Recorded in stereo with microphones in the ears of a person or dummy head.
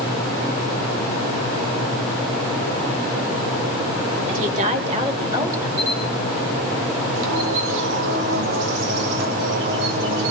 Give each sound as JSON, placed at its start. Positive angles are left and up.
{"t": 4.3, "sound": "a woman speaking", "side_deg": -45, "distance_m": 3.5}
{"t": 5.8, "sound": "a camera shutter", "side_deg": -65, "distance_m": 7.0}
{"t": 7.2, "sound": "a bird", "side_deg": -60, "distance_m": 1.3}